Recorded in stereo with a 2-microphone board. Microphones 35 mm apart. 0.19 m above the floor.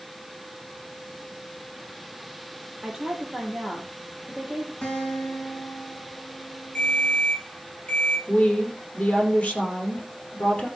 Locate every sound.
2.8 s a woman speaking: 5° right (ahead or behind), 5 m
4.8 s a guitar: 30° left (ahead or behind), 6 m
6.8 s a ringtone: 30° left (ahead or behind), 5.5 m
8.3 s a woman speaking: 35° left (ahead or behind), 5.5 m